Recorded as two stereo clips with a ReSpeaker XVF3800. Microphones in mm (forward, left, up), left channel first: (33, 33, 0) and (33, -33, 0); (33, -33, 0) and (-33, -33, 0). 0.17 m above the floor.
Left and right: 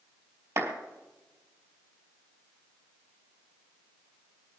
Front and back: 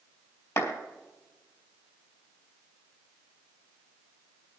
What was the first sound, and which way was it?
A clap, 40° right.